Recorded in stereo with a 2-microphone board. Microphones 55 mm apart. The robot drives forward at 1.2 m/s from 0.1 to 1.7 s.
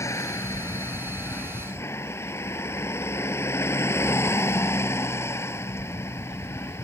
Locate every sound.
0.0 s a vehicle: 60° left (ahead or behind); by 6.8 s 50° left (ahead or behind)